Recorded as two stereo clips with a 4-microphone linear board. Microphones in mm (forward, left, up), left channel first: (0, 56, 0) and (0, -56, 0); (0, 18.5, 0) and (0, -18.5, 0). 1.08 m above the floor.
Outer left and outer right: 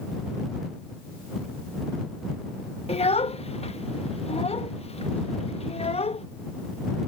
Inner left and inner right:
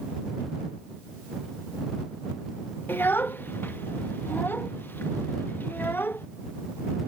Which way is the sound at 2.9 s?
65° left (ahead or behind).